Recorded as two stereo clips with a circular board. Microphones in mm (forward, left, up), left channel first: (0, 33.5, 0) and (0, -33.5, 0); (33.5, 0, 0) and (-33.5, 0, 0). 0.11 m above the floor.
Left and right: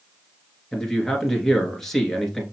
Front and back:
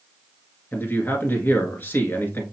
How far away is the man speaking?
About 1.2 m.